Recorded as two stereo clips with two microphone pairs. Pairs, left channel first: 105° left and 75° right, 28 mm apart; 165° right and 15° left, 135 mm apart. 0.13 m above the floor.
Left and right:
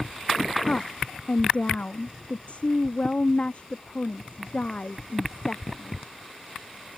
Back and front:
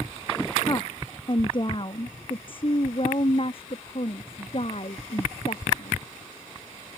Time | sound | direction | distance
0.7 | a woman speaking | 140° left | ?